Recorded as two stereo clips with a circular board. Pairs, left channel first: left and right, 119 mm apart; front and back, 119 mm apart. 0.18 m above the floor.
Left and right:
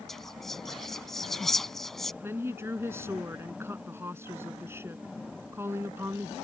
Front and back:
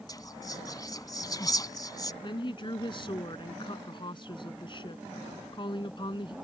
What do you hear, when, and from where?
0.1 s whispering: 5° left
2.2 s a woman speaking: 30° right